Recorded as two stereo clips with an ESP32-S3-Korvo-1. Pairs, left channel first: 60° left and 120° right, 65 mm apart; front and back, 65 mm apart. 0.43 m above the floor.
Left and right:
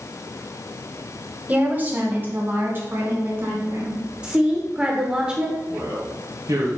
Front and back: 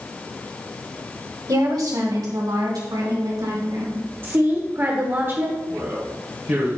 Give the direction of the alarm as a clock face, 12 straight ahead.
I don't hear an alarm.